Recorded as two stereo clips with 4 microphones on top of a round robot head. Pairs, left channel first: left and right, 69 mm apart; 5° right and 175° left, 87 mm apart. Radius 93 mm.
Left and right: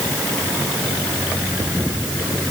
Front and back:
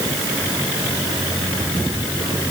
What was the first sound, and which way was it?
Only background noise.